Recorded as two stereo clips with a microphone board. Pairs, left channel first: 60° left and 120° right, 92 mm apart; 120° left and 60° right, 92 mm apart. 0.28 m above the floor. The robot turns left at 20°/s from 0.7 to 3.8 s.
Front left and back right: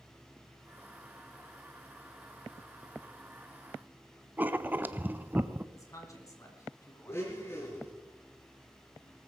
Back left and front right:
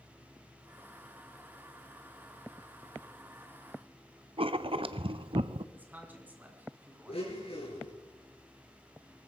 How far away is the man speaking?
About 3 m.